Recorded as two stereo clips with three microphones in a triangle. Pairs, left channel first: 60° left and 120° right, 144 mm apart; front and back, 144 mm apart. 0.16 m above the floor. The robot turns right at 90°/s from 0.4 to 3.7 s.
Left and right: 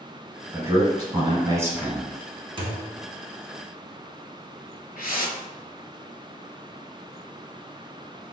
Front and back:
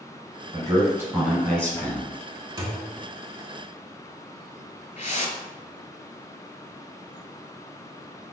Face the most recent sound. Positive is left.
turn(degrees=35)